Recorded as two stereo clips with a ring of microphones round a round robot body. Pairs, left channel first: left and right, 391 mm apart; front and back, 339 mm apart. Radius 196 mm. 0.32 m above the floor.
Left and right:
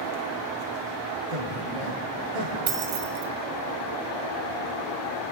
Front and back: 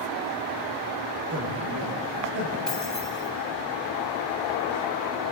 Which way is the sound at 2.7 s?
90° right.